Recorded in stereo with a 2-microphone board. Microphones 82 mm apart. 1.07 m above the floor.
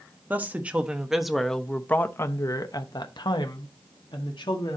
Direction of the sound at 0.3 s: 20° right (ahead or behind).